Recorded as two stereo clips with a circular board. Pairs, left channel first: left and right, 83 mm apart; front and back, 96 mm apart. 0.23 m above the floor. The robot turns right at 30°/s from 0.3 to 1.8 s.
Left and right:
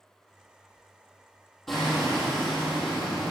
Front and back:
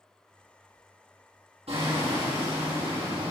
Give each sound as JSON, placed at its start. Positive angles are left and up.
{"t": 1.7, "sound": "hammering", "azimuth_deg": 180, "distance_m": 7.5}